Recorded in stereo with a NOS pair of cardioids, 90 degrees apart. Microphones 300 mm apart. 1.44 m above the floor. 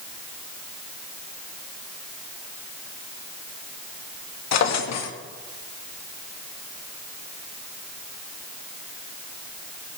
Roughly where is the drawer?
Ahead left.